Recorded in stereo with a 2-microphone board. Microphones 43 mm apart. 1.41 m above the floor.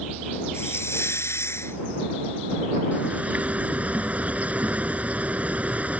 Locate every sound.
0.5 s a hiss: 85° left
2.9 s a bird: 35° right (ahead or behind)